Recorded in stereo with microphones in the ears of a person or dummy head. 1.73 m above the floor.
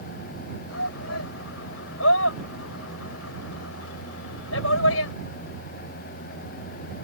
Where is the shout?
65° left (ahead or behind); by 5.1 s 90° left.